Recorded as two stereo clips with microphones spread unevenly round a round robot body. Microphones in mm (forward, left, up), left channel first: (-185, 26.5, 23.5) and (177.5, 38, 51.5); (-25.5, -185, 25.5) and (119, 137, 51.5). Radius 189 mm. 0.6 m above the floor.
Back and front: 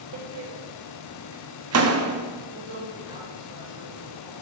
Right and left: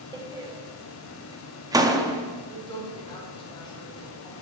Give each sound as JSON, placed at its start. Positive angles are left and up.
{"t": 0.1, "sound": "a door slam", "azimuth_deg": -15, "distance_m": 0.8}
{"t": 2.5, "sound": "a woman speaking", "azimuth_deg": -40, "distance_m": 3.0}